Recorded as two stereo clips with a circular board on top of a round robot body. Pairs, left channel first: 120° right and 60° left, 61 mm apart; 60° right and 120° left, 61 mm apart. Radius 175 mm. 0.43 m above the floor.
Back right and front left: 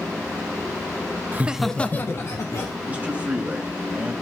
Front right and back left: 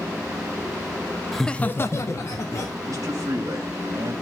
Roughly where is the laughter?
Ahead left.